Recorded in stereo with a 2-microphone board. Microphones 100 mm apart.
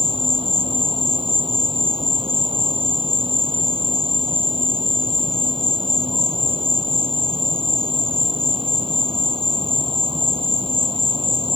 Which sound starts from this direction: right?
An insect, at 0.0 s.